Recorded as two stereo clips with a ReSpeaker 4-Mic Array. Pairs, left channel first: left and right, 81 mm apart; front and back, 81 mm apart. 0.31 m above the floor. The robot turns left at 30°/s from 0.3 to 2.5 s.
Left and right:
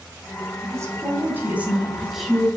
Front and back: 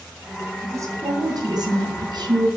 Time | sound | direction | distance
0.6 | a woman speaking | 130° right | 3 m